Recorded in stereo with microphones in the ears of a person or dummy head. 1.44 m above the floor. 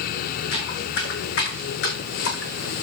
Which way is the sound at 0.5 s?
75° left (ahead or behind).